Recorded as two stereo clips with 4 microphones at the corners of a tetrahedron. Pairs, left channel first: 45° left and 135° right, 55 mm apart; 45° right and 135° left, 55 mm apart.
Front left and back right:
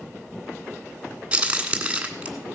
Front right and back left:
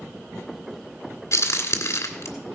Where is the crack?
65° right, 1.7 m.